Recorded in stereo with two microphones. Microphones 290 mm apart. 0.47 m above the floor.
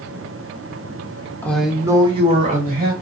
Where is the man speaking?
5° left (ahead or behind), 0.9 m; by 2.9 s 30° right (ahead or behind), 1.6 m.